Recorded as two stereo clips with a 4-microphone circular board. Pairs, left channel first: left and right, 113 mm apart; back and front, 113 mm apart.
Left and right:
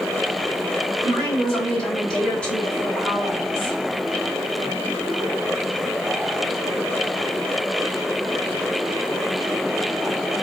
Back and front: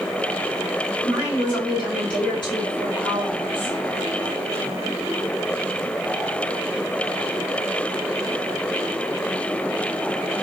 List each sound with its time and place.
1.0 s a woman speaking: 170° left, 1.7 m